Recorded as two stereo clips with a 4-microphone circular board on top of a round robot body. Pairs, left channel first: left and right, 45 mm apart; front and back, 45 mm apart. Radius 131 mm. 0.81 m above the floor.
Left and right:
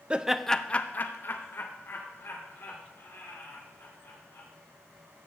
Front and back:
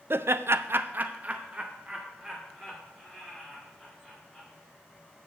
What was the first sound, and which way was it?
Laughter, 155° right.